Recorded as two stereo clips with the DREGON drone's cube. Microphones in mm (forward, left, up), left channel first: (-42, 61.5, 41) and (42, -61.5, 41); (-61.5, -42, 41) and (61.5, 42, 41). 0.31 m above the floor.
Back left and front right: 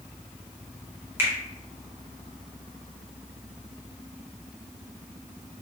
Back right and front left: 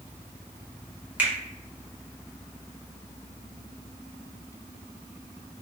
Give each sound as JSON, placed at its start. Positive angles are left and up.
{"t": 1.2, "sound": "a finger snap", "azimuth_deg": -25, "distance_m": 1.0}